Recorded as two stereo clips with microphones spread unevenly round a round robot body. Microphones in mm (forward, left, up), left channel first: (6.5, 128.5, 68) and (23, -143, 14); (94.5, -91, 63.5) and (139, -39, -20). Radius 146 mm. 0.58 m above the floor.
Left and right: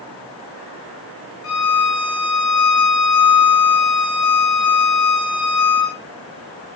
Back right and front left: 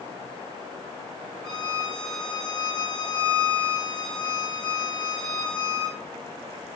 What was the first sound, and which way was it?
A violin, 125° left.